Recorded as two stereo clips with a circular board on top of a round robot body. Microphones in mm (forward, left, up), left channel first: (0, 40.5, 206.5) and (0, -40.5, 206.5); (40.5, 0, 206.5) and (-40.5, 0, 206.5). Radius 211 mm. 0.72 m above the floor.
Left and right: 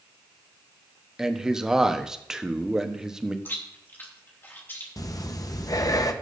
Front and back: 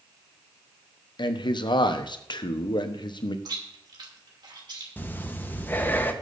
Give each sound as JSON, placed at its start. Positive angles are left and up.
{"t": 1.2, "sound": "a man speaking", "azimuth_deg": -5, "distance_m": 1.1}
{"t": 3.5, "sound": "chewing", "azimuth_deg": 155, "distance_m": 3.0}
{"t": 5.0, "sound": "breathing", "azimuth_deg": 60, "distance_m": 1.2}